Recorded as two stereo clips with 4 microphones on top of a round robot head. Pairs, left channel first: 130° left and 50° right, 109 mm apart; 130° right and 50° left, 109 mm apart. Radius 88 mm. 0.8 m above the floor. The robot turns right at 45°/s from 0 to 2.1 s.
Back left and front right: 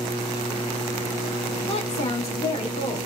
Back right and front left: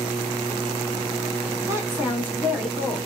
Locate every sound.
1.7 s a woman speaking: 105° left, 1.8 m; by 3.0 s 125° left, 1.8 m